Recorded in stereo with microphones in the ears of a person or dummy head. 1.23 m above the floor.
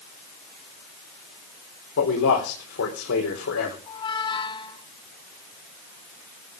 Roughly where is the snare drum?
No snare drum in this recording.